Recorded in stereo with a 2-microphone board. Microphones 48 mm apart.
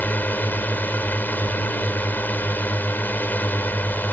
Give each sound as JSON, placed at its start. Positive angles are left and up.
{"t": 0.0, "sound": "a drone", "side_deg": 40}